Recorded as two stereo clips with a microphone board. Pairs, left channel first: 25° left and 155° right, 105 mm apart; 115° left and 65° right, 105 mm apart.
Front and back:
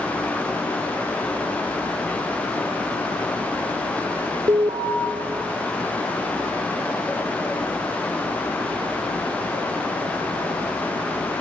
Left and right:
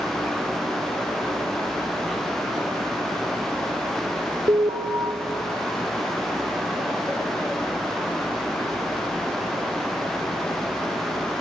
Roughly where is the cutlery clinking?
I don't hear cutlery clinking.